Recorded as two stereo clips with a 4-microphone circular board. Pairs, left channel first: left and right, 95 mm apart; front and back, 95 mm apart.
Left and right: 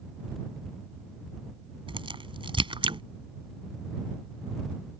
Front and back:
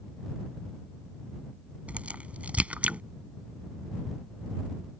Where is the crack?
105° right.